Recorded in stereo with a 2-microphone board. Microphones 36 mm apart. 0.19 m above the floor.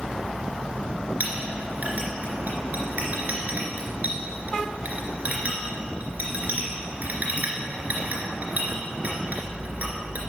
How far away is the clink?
About 2.5 m.